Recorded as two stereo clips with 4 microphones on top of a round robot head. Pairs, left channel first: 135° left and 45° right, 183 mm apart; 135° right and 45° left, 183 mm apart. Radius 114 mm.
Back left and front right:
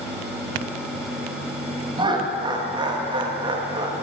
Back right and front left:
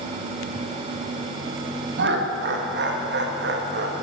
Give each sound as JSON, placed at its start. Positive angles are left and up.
{"t": 2.0, "sound": "laughter", "azimuth_deg": 20, "distance_m": 1.6}